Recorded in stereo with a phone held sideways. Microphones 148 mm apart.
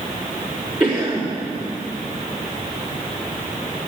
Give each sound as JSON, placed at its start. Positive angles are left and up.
{"t": 0.8, "sound": "a cough", "side_deg": -10, "distance_m": 4.5}